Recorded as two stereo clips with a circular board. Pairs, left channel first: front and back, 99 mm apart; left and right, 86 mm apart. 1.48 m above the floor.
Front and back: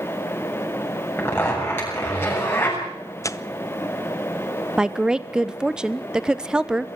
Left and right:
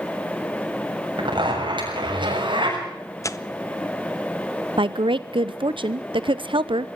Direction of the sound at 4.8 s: 100° right.